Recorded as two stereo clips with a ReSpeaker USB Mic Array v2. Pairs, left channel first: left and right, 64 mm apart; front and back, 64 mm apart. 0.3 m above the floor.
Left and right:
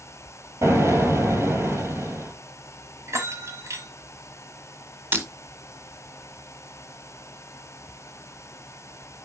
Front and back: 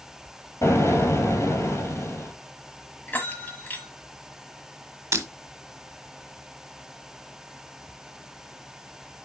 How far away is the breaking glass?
About 1.1 m.